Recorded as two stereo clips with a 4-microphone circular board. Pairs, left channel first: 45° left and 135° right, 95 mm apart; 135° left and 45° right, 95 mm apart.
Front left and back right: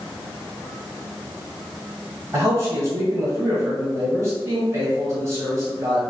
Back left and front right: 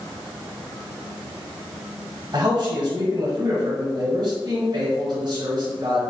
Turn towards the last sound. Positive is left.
turn(degrees=-80)